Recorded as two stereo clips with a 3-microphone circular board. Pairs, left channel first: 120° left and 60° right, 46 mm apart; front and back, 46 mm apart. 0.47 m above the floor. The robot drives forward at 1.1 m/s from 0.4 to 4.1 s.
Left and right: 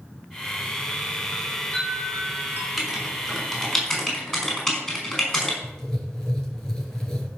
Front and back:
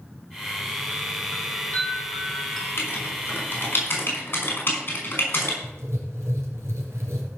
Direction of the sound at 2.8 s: 35° left.